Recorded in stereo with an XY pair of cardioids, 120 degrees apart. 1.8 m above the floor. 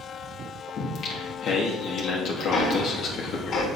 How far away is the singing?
About 3 m.